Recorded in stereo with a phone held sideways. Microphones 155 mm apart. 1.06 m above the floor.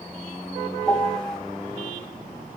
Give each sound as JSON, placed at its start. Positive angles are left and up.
{"t": 0.9, "sound": "a piano", "side_deg": 5, "distance_m": 1.7}